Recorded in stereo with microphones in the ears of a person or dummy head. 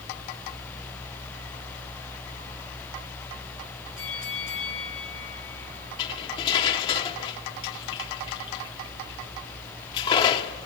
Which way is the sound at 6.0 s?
25° left (ahead or behind).